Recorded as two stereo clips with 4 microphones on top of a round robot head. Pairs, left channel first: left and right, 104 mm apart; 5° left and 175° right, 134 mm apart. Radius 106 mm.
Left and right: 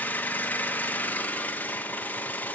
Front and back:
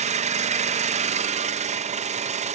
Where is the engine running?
165° left, 0.7 m.